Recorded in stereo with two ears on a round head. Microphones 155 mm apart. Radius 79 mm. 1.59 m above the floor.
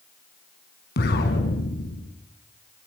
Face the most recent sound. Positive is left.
turn(degrees=65)  # may be behind; listen again after turning